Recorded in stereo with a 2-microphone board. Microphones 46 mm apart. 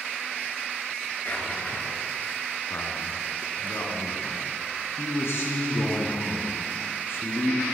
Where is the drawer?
40° left (ahead or behind), 2 m.